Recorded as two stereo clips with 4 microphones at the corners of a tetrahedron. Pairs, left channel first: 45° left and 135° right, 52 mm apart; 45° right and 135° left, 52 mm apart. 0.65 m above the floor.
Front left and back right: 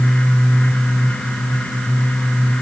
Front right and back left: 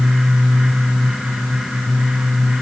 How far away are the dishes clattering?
I don't hear dishes clattering.